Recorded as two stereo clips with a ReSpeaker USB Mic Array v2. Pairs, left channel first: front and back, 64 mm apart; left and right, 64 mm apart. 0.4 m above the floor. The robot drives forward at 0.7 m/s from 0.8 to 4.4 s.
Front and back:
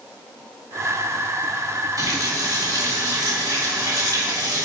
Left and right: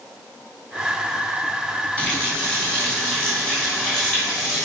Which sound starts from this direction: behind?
A running tap, at 2.0 s.